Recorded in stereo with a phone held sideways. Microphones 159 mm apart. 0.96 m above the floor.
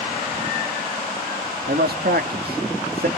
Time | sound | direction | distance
1.7 | a man speaking | 75° right (ahead or behind) | 1.6 m